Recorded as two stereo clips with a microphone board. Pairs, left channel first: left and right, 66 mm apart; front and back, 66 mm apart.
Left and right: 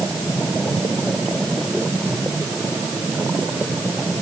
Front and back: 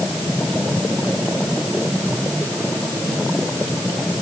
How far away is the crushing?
No crushing in this recording.